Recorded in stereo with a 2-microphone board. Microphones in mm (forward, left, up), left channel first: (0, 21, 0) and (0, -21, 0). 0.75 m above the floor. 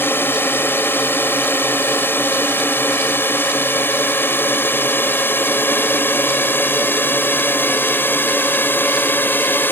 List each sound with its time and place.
0.0 s a drone: 65° left (ahead or behind); by 9.7 s 55° left (ahead or behind)